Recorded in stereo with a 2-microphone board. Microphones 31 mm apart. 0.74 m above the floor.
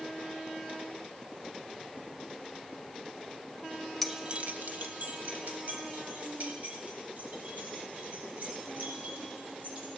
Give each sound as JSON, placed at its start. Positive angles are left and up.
{"t": 4.0, "sound": "keys jangling", "side_deg": 0, "distance_m": 0.6}